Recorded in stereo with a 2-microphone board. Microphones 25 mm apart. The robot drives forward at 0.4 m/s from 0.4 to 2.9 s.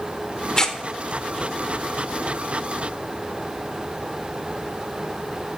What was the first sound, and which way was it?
Tearing paper, 25° left (ahead or behind).